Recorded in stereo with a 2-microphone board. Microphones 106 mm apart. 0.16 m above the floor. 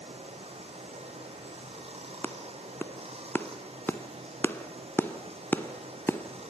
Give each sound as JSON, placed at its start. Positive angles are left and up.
{"t": 0.0, "sound": "running water", "side_deg": -70, "distance_m": 4.0}
{"t": 2.2, "sound": "a clap", "side_deg": 20, "distance_m": 1.1}